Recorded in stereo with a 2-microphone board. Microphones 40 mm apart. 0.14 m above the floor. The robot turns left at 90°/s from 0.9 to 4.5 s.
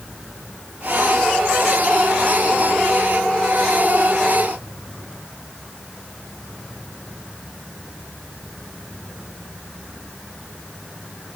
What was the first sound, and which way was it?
Only background noise.